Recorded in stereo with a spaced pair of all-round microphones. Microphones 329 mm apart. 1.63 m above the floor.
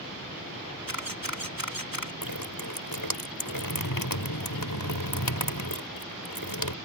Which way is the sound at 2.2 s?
75° left (ahead or behind).